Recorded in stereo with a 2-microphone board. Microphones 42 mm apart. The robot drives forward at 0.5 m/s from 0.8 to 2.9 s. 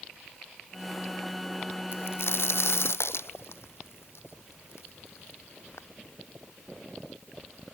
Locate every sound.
1.9 s a crack: 70° left (ahead or behind); by 5.9 s 85° left